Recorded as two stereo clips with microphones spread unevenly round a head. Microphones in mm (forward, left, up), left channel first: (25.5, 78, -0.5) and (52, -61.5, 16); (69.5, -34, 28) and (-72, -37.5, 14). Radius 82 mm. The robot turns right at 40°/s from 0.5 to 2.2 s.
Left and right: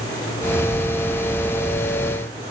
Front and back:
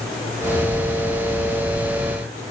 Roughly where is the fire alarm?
I don't hear a fire alarm.